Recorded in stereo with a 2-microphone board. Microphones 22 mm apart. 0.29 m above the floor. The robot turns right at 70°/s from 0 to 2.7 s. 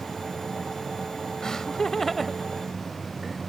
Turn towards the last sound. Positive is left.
turn(degrees=-10)  # may be behind; listen again after turning